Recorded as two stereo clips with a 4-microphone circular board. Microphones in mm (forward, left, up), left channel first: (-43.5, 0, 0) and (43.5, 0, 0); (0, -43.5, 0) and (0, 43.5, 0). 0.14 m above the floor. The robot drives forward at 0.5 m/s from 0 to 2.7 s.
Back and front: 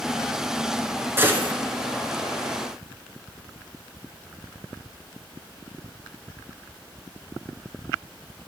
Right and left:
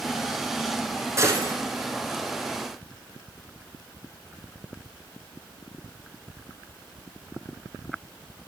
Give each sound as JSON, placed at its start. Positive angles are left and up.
{"t": 1.2, "sound": "a gunshot", "azimuth_deg": 50, "distance_m": 0.9}